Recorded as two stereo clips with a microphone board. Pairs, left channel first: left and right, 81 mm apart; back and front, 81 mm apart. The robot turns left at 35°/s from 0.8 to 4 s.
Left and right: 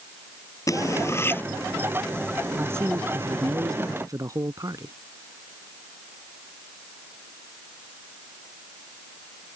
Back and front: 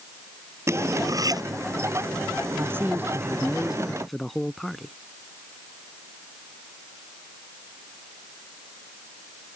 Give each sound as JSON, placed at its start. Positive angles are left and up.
{"t": 0.7, "sound": "cutlery clinking", "azimuth_deg": 50}
{"t": 2.6, "sound": "a man speaking", "azimuth_deg": -40}